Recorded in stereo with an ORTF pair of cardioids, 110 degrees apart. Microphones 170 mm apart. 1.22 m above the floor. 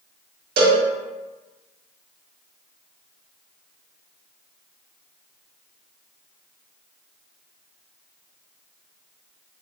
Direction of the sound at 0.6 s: 65° right.